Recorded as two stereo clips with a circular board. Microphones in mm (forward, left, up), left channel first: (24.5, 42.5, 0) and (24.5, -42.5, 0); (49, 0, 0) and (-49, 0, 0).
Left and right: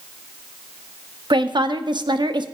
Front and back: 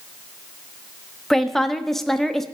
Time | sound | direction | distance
1.3 | a woman speaking | 85° right | 0.8 m